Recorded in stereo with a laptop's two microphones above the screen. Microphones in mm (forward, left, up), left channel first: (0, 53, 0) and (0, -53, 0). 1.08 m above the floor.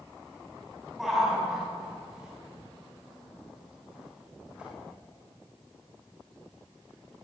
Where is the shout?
5° right (ahead or behind), 7.5 m; by 4.7 s 10° right (ahead or behind), 11 m.